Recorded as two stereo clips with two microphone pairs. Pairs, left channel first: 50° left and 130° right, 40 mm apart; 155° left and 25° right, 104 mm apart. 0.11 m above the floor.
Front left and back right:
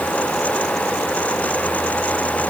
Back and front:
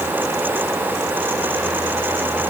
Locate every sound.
Only background noise.